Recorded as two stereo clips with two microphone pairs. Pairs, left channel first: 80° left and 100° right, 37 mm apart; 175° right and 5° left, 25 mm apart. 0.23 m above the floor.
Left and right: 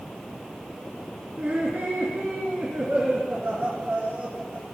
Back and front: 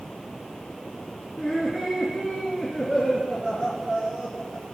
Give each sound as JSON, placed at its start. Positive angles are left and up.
{"t": 1.4, "sound": "laughter", "azimuth_deg": -65, "distance_m": 3.0}